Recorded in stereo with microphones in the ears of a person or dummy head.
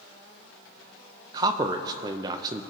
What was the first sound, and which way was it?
A man speaking, 25° right (ahead or behind).